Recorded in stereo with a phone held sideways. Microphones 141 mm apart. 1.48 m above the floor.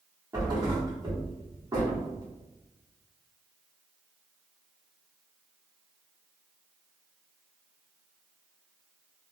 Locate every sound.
0.3 s a thud: 25° right (ahead or behind), 1.2 m